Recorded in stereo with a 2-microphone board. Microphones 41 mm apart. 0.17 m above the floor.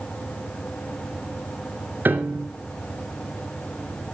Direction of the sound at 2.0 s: 55° right (ahead or behind).